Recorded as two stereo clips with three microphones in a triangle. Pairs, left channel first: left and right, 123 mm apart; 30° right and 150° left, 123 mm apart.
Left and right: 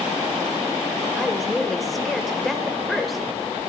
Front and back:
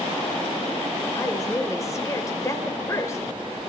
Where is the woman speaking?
Straight ahead, 1.3 m.